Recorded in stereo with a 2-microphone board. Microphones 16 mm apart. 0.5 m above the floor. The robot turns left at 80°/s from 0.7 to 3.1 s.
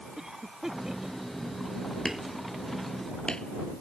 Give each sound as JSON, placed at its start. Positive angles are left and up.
{"t": 0.2, "sound": "a cough", "side_deg": -30}
{"t": 2.0, "sound": "hammering", "side_deg": -30}